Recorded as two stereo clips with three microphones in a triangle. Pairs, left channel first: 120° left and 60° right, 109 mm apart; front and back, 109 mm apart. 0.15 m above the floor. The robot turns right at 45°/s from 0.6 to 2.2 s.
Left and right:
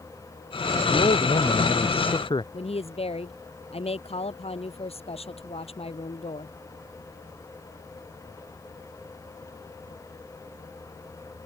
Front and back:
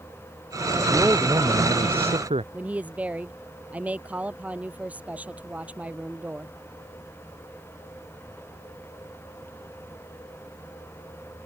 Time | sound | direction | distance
0.9 | a man speaking | 105° left | ?
2.5 | a woman speaking | 105° left | ?